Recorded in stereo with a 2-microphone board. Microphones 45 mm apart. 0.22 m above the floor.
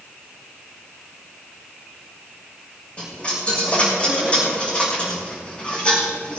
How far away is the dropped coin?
About 5 m.